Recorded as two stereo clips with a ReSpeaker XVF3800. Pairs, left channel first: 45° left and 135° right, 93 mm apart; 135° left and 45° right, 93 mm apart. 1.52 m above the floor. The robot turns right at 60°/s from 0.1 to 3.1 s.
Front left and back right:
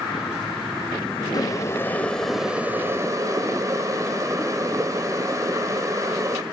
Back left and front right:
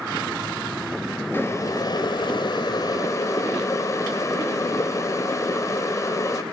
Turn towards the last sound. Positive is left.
turn(degrees=180)